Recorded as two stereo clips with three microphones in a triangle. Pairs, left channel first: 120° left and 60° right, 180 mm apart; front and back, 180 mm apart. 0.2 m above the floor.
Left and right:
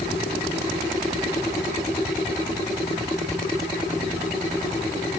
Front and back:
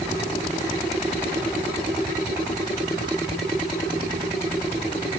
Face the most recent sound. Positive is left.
No sound to turn to.